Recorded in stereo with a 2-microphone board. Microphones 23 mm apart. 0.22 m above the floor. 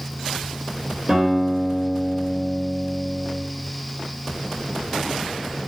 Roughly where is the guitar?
Right.